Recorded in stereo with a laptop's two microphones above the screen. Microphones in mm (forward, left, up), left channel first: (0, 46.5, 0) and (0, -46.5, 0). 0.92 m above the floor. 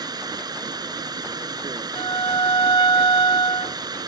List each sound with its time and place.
0.0 s running water: 45° right (ahead or behind)
1.9 s a violin: 60° left (ahead or behind)